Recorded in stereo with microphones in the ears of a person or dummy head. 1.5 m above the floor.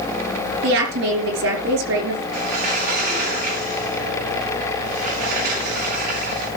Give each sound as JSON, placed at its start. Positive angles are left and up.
{"t": 0.6, "sound": "a woman speaking", "side_deg": -80, "distance_m": 5.0}
{"t": 2.3, "sound": "a sliding door", "side_deg": -60, "distance_m": 9.5}